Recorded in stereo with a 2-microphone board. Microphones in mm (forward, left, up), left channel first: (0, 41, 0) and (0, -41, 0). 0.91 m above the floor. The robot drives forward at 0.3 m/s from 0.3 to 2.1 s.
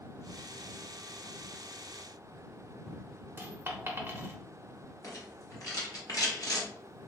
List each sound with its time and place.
3.4 s a dropped coin: 25° right (ahead or behind), 0.5 m
5.0 s a rattle: 50° left (ahead or behind), 1.0 m